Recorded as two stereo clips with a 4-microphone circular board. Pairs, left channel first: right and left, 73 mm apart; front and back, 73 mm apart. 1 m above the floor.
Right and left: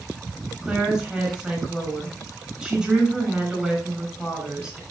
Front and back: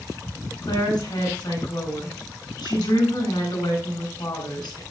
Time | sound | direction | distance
0.6 | a woman speaking | 10° left | 7 m